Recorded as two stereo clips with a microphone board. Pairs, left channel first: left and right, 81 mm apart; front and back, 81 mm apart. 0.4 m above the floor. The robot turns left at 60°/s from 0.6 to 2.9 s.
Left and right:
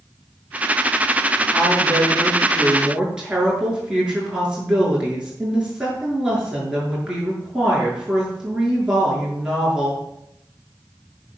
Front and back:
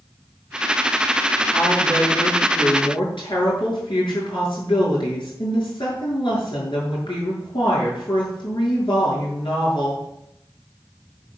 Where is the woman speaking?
75° left, 7 m; by 10.0 s 10° right, 7 m.